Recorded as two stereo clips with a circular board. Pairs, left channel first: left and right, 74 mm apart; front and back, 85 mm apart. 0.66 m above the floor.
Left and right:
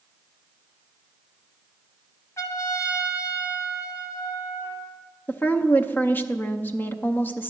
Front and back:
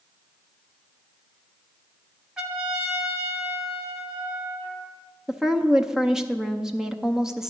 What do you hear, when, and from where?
2.4 s a trumpet: 100° left, 1.4 m
5.3 s a woman speaking: 105° left, 0.6 m